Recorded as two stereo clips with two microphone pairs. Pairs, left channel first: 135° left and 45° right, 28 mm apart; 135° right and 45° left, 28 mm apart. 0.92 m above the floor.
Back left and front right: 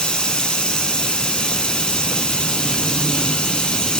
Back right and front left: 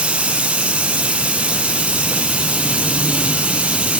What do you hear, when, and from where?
0.0 s running water: 80° left, 1.6 m